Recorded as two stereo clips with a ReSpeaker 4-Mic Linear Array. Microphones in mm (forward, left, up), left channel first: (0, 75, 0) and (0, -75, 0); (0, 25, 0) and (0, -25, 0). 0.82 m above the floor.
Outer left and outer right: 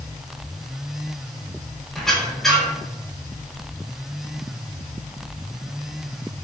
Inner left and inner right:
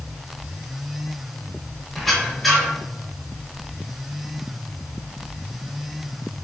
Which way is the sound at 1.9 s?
Centre (ahead or behind).